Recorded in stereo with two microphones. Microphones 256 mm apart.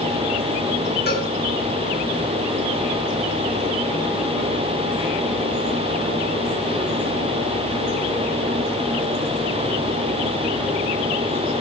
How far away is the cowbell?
About 5 m.